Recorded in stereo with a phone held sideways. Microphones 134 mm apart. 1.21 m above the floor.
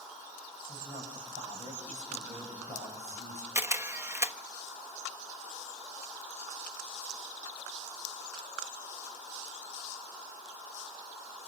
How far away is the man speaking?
About 7.5 m.